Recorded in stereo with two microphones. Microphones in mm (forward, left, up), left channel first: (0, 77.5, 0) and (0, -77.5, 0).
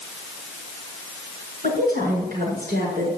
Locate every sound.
1.6 s a woman speaking: 70° right (ahead or behind), 7 m; by 3.1 s 80° right, 7.5 m